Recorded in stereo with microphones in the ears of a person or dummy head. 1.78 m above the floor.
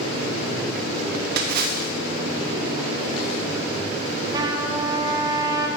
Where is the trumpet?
25° right (ahead or behind), 1.2 m.